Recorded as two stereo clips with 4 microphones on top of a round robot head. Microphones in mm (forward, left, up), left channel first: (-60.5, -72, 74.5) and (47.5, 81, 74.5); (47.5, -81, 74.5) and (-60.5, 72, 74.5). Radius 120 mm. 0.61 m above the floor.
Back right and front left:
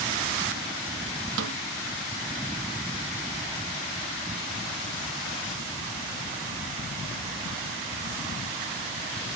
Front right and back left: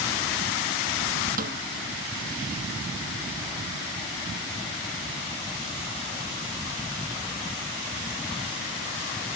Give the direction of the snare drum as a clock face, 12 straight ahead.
9 o'clock.